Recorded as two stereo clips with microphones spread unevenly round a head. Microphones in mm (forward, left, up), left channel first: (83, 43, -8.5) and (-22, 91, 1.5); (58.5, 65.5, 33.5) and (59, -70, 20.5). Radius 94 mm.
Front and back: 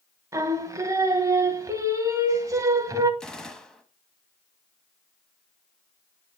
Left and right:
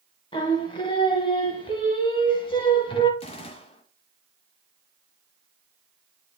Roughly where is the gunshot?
Ahead left.